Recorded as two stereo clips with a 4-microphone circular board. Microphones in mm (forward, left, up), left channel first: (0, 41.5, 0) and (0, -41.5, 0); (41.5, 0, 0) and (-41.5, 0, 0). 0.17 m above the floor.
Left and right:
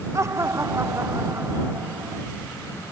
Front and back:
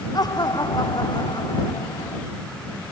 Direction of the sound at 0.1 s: 35° right.